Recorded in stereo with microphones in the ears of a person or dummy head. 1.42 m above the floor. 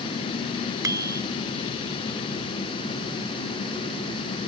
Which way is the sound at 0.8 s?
20° right (ahead or behind).